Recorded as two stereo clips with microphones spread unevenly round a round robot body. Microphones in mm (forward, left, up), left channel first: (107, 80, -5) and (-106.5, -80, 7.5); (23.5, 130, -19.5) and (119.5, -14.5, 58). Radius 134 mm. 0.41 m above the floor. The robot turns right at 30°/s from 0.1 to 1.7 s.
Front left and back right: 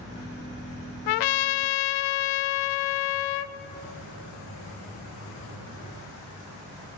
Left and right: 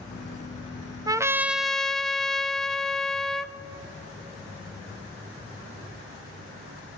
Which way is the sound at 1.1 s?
15° left.